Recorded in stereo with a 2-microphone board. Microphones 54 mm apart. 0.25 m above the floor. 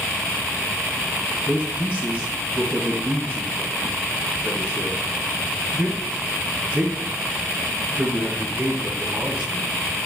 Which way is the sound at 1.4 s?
25° right (ahead or behind).